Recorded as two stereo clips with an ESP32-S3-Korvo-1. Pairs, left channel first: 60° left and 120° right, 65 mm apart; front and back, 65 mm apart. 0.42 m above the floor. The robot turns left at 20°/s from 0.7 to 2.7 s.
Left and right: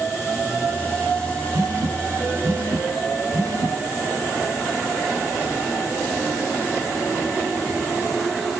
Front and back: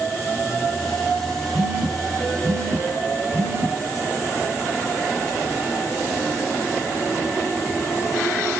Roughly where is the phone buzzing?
Right.